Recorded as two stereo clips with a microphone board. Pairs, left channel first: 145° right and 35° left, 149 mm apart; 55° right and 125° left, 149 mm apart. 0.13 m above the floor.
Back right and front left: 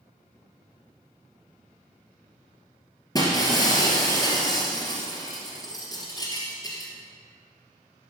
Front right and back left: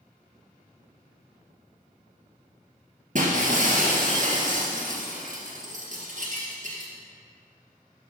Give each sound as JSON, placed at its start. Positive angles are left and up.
{"t": 3.1, "sound": "breaking glass", "azimuth_deg": 150, "distance_m": 2.5}